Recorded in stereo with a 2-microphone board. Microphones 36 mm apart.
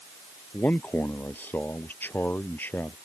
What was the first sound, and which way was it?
A man speaking, 70° left (ahead or behind).